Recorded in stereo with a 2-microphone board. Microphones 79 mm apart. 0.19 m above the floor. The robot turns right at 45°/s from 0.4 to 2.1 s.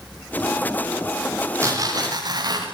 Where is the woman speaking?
I don't hear a woman speaking.